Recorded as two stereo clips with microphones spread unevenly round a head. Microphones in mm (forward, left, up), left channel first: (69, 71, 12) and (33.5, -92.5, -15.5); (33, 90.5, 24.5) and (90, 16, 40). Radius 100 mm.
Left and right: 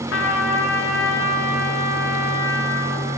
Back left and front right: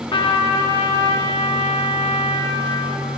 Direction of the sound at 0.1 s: 105° left.